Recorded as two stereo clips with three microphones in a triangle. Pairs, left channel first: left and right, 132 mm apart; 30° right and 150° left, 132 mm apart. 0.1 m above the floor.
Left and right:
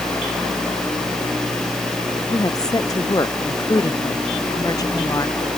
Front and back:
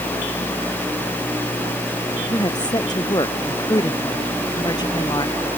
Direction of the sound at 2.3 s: 25° left.